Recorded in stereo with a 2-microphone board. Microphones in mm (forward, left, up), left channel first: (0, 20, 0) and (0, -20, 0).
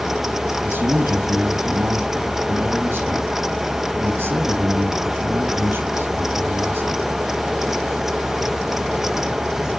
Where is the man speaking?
50° right (ahead or behind), 4 m.